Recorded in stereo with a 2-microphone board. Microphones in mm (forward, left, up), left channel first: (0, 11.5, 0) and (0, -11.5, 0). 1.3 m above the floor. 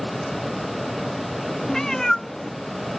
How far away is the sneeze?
No sneeze in this recording.